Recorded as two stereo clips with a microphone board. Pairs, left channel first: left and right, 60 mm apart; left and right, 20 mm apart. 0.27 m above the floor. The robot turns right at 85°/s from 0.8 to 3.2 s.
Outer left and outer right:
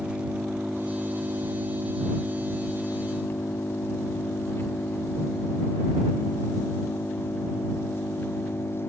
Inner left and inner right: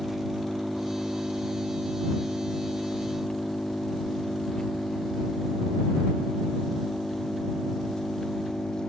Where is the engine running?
165° right; by 8.9 s 40° left.